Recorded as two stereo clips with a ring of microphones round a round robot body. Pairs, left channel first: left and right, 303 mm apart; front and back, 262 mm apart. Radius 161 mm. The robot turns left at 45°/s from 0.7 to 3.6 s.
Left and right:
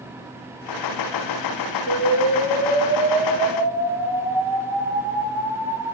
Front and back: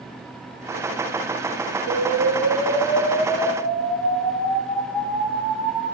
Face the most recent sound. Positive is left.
turn(degrees=-130)